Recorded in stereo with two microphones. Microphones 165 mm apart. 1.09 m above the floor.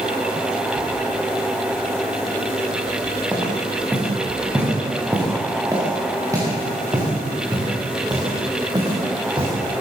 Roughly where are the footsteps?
Centre.